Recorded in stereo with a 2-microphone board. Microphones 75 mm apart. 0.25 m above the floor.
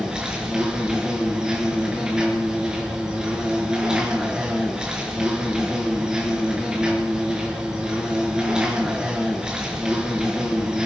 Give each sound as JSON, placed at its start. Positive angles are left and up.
{"t": 0.0, "sound": "an insect", "side_deg": -10, "distance_m": 4.5}